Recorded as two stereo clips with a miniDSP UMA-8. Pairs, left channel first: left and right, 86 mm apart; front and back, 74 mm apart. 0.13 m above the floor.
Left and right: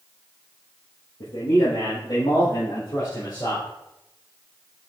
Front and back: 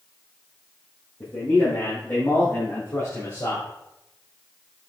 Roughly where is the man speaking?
Ahead left.